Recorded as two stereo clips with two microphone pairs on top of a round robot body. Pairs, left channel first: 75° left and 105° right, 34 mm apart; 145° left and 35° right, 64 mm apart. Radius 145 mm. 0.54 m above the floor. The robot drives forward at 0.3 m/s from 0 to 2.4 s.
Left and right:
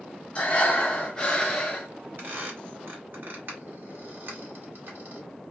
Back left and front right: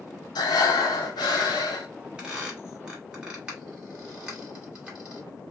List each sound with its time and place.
0.3 s breathing: 135° left, 0.6 m; by 1.9 s 155° left, 1.0 m
2.2 s a squeak: 110° right, 2 m